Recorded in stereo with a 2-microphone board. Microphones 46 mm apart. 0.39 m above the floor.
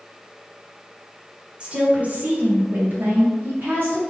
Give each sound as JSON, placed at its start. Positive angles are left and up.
{"t": 1.6, "sound": "a woman speaking", "side_deg": -25, "distance_m": 1.2}